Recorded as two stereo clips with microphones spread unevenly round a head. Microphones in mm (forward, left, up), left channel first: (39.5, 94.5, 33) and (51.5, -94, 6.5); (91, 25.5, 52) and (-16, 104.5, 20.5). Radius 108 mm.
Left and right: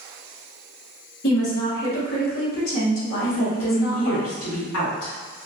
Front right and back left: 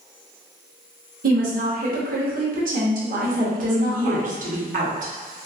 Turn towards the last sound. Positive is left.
turn(degrees=125)